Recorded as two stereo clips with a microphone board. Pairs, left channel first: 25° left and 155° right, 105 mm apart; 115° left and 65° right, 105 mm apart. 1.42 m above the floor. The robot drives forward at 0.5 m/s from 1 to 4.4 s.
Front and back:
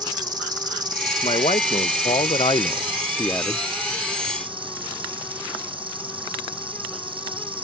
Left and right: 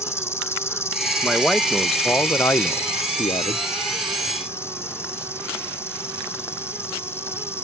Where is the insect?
170° left; by 7.7 s 175° left.